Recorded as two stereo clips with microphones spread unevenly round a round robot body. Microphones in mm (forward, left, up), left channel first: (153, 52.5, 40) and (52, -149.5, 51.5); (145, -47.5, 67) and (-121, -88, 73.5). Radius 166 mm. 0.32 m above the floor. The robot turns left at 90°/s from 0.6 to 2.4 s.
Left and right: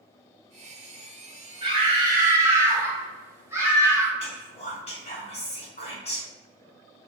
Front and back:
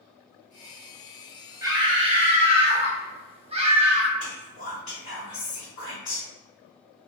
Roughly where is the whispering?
Ahead left.